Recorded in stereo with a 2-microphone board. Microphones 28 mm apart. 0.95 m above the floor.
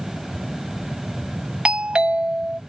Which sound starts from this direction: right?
A doorbell, at 1.6 s.